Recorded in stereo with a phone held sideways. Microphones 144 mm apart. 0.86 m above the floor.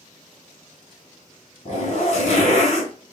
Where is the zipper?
55° left (ahead or behind), 1.3 m.